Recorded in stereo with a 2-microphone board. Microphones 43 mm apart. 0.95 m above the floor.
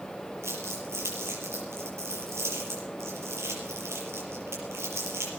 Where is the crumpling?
80° right, 6 m.